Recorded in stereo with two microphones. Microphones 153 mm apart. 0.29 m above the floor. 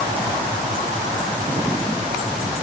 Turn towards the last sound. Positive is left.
No sound to turn to.